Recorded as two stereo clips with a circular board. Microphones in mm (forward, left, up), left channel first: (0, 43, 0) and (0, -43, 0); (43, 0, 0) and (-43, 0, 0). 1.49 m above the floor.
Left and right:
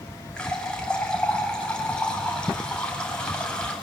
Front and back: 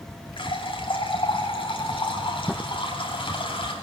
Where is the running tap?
10° left, 7.5 m.